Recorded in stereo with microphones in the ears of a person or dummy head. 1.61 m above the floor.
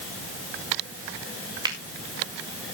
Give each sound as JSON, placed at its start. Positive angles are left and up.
{"t": 1.6, "sound": "a finger snap", "side_deg": -25, "distance_m": 1.9}